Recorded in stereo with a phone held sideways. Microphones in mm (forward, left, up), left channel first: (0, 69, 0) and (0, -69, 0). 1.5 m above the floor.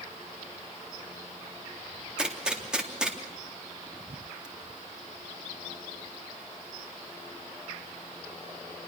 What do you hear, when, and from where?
2.2 s a gunshot: 5° right (ahead or behind), 3.5 m